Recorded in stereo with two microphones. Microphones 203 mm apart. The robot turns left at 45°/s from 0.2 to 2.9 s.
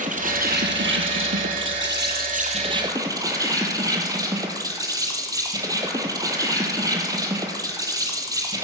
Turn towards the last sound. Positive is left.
turn(degrees=-160)